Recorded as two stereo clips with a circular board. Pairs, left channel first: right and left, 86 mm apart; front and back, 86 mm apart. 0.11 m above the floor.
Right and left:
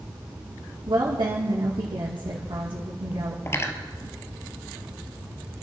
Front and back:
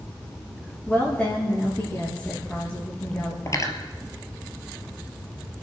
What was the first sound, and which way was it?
A woman speaking, 65° left.